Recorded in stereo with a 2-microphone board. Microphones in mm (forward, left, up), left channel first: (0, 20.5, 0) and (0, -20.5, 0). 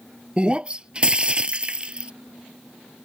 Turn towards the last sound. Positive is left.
turn(degrees=-25)  # may be behind; listen again after turning